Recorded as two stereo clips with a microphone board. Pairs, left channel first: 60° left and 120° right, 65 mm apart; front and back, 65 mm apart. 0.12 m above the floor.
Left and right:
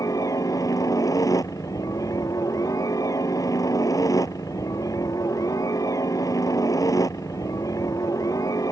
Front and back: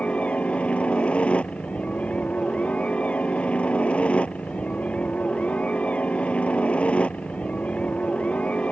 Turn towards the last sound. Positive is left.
turn(degrees=70)